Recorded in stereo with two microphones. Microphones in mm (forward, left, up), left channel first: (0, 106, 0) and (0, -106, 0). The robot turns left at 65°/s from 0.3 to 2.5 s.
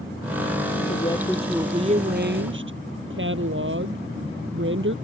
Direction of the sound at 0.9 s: 35° left.